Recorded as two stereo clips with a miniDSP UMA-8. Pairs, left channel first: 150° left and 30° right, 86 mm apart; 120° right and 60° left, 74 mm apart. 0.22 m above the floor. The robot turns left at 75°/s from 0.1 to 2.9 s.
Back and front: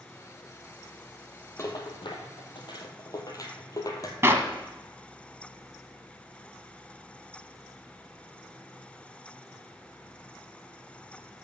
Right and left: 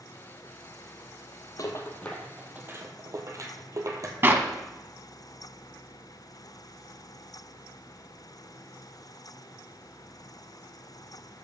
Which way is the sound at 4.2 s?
15° left.